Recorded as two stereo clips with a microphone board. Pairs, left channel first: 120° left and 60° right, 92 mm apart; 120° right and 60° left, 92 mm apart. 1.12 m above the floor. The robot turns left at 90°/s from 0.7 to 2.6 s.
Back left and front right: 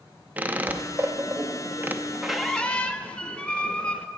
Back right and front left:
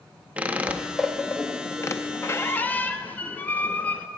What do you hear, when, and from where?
0.4 s a squeak: 5° right, 0.5 m; by 4.1 s 175° right, 0.5 m